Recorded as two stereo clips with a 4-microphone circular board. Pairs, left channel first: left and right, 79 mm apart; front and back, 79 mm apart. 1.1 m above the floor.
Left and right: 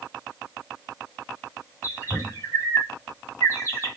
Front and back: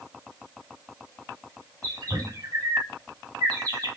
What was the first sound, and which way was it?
A bird, 145° left.